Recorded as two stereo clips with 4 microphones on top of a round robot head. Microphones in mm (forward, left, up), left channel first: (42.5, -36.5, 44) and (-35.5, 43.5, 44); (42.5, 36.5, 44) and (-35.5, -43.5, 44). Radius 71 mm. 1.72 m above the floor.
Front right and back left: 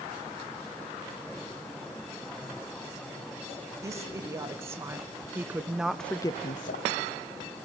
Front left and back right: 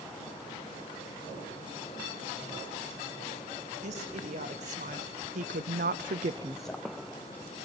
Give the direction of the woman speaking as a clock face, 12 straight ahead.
5 o'clock.